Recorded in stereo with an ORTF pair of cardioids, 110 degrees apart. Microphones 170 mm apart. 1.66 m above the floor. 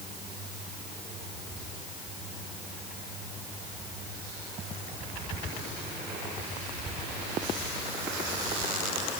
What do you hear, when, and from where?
Only background noise.